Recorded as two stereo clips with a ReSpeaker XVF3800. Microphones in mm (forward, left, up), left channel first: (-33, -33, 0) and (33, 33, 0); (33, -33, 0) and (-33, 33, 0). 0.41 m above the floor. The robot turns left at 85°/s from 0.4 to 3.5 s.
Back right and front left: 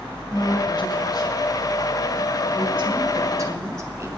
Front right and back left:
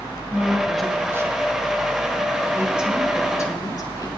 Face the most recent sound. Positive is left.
turn(degrees=-5)